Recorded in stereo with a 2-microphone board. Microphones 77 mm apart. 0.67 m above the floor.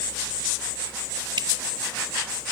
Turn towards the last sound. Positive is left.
turn(degrees=-75)  # may be behind; listen again after turning